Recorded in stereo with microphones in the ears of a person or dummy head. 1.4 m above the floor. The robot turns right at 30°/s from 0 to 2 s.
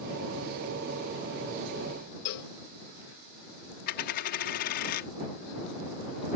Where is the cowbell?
60° left (ahead or behind).